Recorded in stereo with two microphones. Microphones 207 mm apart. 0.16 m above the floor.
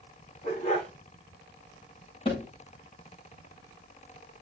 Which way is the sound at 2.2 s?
30° left (ahead or behind).